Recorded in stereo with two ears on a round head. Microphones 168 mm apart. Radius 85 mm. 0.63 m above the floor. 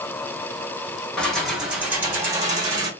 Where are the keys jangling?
5° left (ahead or behind), 1.6 m; by 2.9 s 25° right (ahead or behind), 2.0 m.